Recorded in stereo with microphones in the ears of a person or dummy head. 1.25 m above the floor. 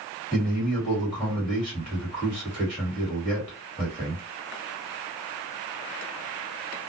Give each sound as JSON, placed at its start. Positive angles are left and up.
{"t": 0.3, "sound": "a man speaking", "side_deg": 5, "distance_m": 1.7}